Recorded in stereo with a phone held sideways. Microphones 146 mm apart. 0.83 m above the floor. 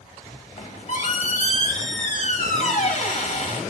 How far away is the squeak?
About 1.1 m.